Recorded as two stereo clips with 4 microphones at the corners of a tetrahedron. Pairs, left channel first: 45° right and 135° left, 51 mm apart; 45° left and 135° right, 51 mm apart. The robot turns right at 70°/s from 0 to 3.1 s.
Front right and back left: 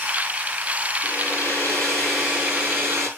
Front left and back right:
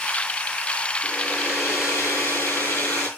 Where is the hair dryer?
40° right, 7 m; by 3.1 s 105° left, 7 m.